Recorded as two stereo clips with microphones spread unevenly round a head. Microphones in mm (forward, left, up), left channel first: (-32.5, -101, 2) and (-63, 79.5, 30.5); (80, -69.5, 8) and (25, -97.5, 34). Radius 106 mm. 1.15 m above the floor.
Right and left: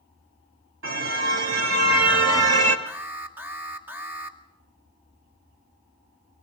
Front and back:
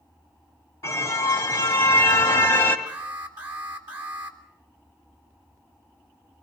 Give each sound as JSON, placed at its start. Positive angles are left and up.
{"t": 0.8, "sound": "a car horn", "azimuth_deg": 75, "distance_m": 3.0}
{"t": 2.9, "sound": "an alarm", "azimuth_deg": 180, "distance_m": 2.5}